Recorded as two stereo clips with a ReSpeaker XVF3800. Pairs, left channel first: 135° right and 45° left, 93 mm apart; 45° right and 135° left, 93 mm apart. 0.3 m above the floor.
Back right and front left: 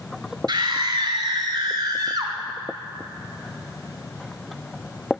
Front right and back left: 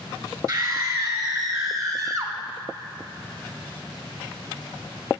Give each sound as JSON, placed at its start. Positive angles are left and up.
{"t": 0.5, "sound": "a scream", "azimuth_deg": 90, "distance_m": 3.5}